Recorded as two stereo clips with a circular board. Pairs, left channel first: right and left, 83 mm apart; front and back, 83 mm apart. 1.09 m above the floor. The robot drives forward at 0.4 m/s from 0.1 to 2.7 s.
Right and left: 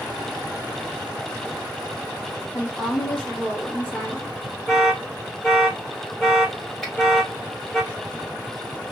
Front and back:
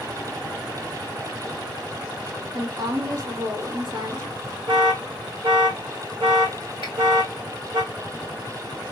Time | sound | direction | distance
2.5 | a woman speaking | 160° right | 0.8 m
4.7 | an alarm | straight behind | 1.2 m
6.8 | a finger snap | 175° right | 1.7 m